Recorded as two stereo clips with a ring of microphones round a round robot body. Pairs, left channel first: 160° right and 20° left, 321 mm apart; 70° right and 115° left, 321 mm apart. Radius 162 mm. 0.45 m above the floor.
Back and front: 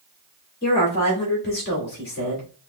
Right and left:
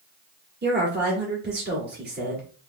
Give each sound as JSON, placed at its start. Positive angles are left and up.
{"t": 0.6, "sound": "a woman speaking", "azimuth_deg": 160, "distance_m": 1.7}